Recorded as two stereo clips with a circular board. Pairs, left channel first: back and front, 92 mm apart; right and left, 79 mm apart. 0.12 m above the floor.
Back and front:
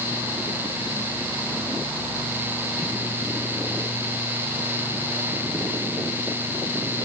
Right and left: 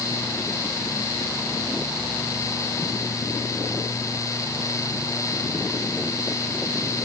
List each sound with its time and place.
Only background noise.